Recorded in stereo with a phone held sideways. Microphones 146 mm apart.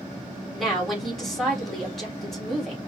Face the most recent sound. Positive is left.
turn(degrees=0)  # may be behind; listen again after turning